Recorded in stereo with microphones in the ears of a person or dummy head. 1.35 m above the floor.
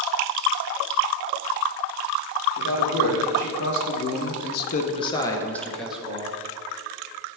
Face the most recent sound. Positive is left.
turn(degrees=-10)  # may be behind; listen again after turning